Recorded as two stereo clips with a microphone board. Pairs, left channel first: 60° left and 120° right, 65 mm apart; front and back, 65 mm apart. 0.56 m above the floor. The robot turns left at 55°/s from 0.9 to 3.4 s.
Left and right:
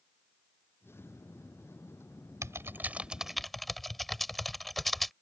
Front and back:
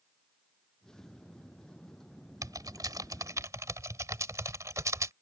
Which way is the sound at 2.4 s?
160° right.